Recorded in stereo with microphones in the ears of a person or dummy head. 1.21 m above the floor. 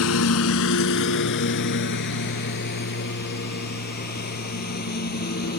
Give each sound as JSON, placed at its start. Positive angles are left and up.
{"t": 0.0, "sound": "a lawn mower", "side_deg": 75}